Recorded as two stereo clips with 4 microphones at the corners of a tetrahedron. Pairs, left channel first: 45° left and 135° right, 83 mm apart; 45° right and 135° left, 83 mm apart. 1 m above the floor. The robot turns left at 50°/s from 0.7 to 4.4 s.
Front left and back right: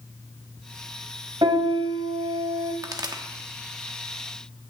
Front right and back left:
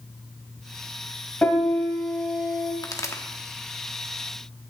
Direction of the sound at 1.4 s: 115° right.